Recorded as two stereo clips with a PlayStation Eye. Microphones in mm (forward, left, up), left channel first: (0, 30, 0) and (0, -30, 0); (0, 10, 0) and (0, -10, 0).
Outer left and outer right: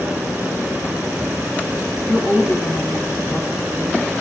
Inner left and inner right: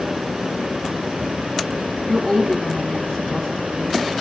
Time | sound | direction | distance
2.1 | a woman speaking | 45° left (ahead or behind) | 2 m